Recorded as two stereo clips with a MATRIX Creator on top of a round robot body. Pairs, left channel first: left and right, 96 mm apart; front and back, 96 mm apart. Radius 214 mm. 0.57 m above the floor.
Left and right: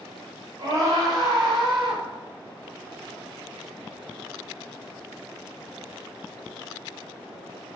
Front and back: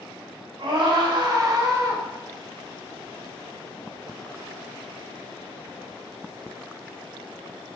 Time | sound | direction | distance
0.6 | a scream | 140° right | 3.5 m